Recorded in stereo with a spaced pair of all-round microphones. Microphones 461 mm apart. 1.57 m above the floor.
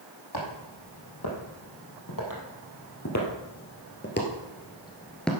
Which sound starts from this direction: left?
Footsteps, at 0.3 s.